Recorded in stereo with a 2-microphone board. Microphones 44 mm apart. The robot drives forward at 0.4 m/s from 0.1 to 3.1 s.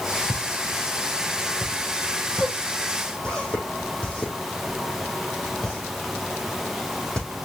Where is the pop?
25° left (ahead or behind), 3.5 m; by 7.3 s 20° left (ahead or behind), 4.5 m.